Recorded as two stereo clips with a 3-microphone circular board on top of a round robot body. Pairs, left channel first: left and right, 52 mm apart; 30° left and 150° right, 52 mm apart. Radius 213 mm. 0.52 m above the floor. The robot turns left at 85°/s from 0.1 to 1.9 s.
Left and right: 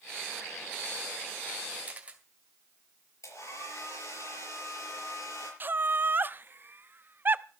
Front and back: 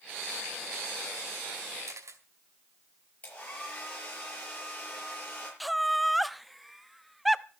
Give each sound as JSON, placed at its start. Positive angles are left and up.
{"t": 1.9, "sound": "a camera shutter", "azimuth_deg": -150, "distance_m": 2.0}
{"t": 3.2, "sound": "a hair dryer", "azimuth_deg": 90, "distance_m": 6.0}
{"t": 5.6, "sound": "laughter", "azimuth_deg": -60, "distance_m": 1.0}